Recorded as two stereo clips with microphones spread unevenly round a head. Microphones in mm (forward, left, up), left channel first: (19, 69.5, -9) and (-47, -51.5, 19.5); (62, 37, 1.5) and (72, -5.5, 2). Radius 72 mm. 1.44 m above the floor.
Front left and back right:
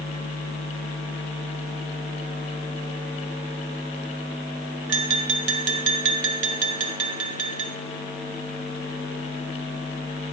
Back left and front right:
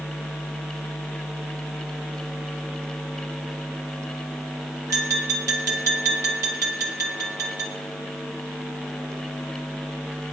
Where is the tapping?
105° right, 1.4 m.